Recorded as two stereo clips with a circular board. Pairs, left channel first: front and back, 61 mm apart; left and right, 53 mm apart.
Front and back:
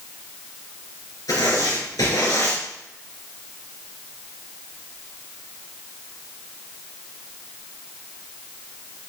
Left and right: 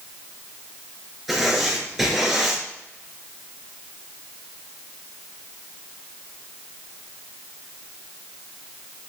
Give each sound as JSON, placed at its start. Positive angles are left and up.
{"t": 1.3, "sound": "writing", "azimuth_deg": -5, "distance_m": 3.5}